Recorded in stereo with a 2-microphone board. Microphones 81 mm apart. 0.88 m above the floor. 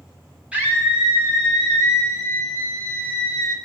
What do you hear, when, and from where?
0.5 s a scream: 15° right (ahead or behind), 2.5 m; by 3.5 s 35° left (ahead or behind), 1.4 m